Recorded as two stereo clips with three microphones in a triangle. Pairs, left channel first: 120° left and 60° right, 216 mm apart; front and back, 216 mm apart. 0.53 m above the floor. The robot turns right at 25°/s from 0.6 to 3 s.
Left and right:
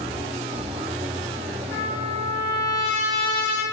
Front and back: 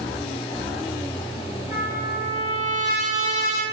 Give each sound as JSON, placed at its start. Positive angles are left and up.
{"t": 1.7, "sound": "a trumpet", "azimuth_deg": -45, "distance_m": 1.8}